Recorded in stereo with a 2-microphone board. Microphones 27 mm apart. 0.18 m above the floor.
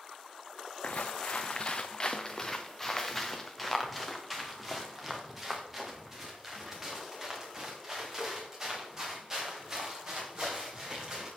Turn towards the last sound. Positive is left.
turn(degrees=-25)  # may be behind; listen again after turning